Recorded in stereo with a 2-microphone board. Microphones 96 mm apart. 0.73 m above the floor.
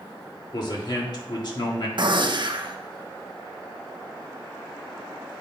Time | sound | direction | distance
0.5 | a man speaking | 50° left (ahead or behind) | 1.6 m
2.0 | a gunshot | 55° right (ahead or behind) | 0.6 m